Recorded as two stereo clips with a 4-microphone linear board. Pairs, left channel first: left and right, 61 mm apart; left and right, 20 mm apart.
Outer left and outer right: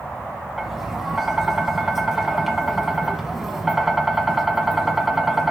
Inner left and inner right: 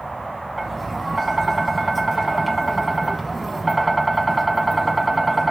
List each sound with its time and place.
0.6 s tapping: 5° right (ahead or behind), 1.2 m